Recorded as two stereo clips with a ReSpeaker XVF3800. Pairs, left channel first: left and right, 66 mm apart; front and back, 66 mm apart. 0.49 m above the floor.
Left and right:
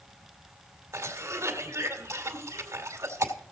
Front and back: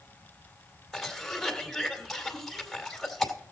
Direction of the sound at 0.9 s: 90° right.